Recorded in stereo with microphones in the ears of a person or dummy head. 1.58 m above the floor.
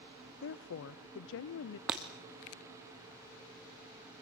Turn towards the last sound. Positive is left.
turn(degrees=-5)  # may be behind; listen again after turning